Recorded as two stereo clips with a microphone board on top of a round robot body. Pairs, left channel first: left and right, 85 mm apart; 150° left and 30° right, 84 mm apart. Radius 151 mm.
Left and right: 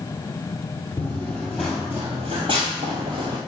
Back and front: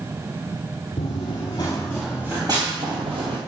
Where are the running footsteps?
155° left, 1.0 m; by 3.4 s 50° right, 1.2 m.